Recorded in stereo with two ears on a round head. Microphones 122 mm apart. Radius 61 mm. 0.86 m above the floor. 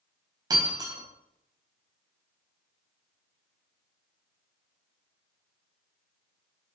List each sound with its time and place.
0.5 s breaking glass: 30° right (ahead or behind), 3.5 m